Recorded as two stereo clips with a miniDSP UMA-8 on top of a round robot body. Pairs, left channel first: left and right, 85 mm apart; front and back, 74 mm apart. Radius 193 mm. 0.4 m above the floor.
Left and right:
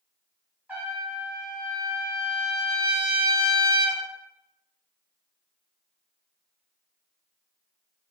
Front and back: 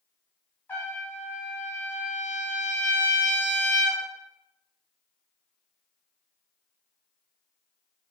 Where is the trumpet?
35° right, 1.3 m.